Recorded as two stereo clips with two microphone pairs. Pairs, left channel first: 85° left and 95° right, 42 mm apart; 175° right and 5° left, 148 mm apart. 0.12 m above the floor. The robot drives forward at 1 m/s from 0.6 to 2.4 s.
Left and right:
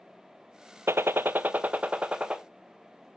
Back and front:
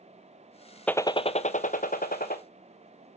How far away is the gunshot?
About 0.6 m.